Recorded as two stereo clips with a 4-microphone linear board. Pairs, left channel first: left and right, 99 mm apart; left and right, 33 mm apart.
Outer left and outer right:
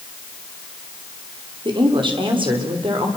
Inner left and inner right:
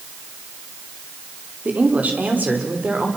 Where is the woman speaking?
50° right (ahead or behind), 4.5 m; by 3.1 s 55° right (ahead or behind), 5.5 m.